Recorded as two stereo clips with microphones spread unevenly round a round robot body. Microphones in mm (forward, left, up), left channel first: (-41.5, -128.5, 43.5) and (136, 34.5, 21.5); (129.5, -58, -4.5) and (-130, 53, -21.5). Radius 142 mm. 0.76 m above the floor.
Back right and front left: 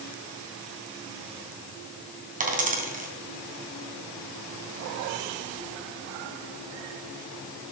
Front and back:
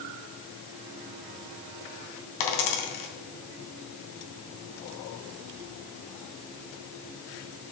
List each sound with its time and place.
2.4 s a dropped coin: 15° right, 3 m